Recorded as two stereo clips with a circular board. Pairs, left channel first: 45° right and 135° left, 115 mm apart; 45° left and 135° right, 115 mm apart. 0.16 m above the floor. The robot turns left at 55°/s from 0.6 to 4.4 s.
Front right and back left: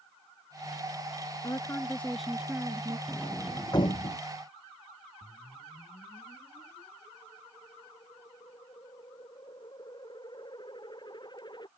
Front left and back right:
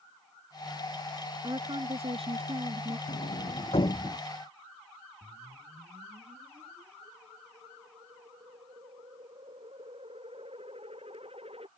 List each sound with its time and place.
1.4 s a woman speaking: 90° right; by 3.0 s 175° right
3.1 s a sliding door: 45° left; by 4.2 s 15° right
5.2 s a whoosh: 95° right